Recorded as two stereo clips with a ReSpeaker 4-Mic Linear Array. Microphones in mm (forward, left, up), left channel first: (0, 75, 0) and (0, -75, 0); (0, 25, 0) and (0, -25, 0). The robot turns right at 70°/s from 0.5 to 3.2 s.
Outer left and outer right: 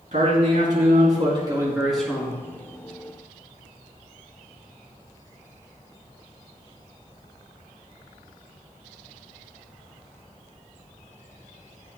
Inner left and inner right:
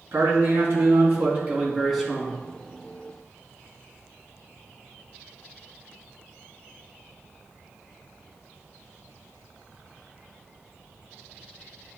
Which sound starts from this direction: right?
A man speaking, at 0.1 s.